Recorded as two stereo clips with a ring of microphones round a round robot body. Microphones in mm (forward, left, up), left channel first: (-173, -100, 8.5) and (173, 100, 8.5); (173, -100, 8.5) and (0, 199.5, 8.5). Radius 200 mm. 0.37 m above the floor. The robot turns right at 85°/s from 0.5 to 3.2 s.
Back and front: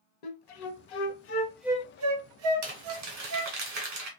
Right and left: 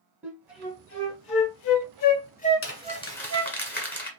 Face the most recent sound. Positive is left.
turn(degrees=20)